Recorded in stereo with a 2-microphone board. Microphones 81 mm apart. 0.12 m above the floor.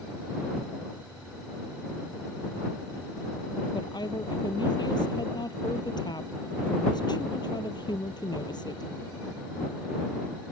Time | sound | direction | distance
3.7 | a woman speaking | 60° left (ahead or behind) | ?